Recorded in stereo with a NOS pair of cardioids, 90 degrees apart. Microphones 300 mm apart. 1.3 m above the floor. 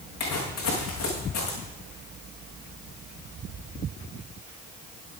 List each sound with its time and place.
0.2 s footsteps: 65° left, 5.5 m